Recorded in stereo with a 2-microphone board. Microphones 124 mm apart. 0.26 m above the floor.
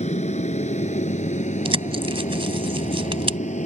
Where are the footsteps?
No footsteps in this recording.